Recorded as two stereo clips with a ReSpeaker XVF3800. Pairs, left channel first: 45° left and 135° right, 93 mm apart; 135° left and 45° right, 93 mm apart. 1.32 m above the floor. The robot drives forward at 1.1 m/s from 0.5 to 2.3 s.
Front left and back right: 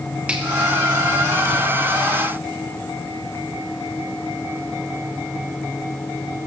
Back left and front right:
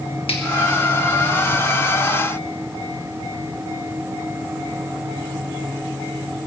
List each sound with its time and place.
0.3 s a finger snap: 150° left, 1.8 m